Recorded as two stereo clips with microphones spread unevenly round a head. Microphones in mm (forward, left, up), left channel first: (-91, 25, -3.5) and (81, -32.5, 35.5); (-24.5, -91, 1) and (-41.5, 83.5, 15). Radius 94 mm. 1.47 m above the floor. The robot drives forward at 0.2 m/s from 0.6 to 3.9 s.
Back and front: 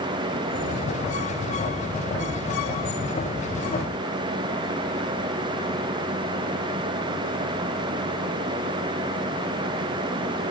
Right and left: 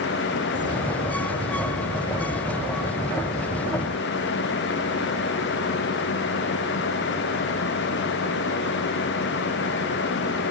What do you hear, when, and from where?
Only background noise.